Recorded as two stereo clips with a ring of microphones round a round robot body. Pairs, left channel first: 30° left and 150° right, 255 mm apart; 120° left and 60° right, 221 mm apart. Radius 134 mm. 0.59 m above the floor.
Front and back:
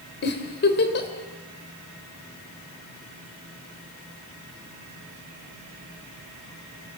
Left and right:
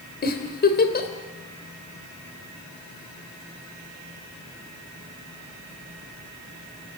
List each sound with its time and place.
0.2 s a giggle: 75° left, 3 m